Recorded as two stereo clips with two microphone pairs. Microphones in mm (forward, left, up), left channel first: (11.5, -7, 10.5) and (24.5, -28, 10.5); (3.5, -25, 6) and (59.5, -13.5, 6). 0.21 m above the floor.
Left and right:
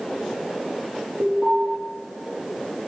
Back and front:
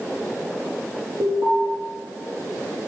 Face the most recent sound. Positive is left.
turn(degrees=-15)